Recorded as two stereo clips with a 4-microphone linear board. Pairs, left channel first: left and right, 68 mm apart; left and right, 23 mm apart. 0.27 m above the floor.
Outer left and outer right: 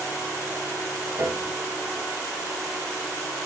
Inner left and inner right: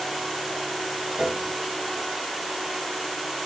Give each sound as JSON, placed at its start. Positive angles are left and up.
{"t": 1.2, "sound": "a piano", "side_deg": -45, "distance_m": 1.2}